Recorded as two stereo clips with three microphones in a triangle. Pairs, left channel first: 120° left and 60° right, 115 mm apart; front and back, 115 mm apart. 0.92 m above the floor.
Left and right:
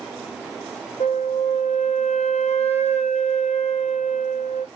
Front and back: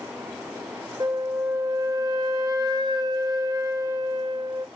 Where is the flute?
125° left, 0.7 m.